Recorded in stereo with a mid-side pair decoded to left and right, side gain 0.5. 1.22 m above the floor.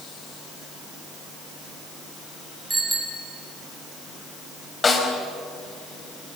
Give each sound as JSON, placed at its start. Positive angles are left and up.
{"t": 2.7, "sound": "a bicycle bell", "azimuth_deg": -20, "distance_m": 6.5}
{"t": 4.8, "sound": "a snare drum", "azimuth_deg": 30, "distance_m": 5.0}